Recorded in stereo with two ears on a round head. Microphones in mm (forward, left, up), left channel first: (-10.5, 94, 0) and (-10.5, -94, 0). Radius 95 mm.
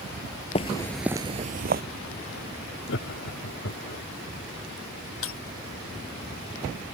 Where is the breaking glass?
70° left (ahead or behind).